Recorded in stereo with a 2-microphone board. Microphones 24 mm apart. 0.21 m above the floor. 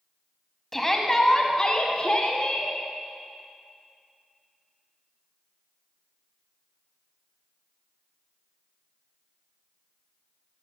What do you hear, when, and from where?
0.7 s a shout: 10° left (ahead or behind), 1.4 m; by 2.7 s 45° left (ahead or behind), 1.9 m